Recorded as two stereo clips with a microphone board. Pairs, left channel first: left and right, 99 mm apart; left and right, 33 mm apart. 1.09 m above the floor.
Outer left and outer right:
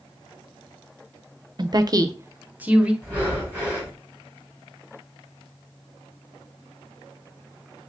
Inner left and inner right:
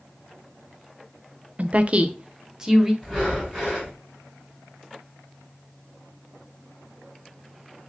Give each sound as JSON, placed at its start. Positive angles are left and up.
{"t": 1.6, "sound": "a woman speaking", "side_deg": -45, "distance_m": 0.5}
{"t": 3.0, "sound": "breathing", "side_deg": 15, "distance_m": 3.0}